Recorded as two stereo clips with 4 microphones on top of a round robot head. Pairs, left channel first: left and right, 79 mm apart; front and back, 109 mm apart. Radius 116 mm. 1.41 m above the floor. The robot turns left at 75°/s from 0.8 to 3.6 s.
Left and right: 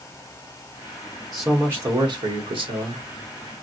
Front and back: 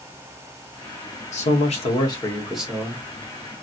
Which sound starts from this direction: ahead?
A man speaking, at 1.3 s.